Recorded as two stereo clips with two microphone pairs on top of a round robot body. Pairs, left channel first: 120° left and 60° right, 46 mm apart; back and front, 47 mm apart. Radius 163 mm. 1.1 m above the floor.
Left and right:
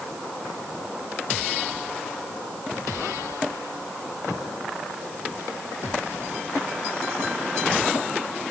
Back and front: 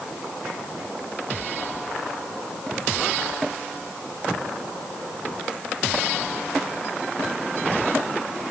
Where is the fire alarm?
No fire alarm in this recording.